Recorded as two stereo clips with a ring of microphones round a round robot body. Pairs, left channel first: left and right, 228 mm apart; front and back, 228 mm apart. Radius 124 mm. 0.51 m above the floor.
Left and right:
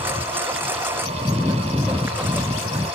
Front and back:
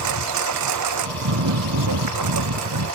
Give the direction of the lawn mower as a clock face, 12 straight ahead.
6 o'clock.